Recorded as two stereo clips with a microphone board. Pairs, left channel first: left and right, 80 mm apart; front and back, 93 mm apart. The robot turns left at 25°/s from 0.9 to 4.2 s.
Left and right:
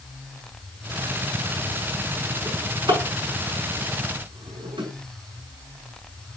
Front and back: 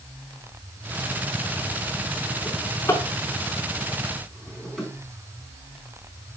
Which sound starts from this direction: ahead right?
A drawer, at 2.5 s.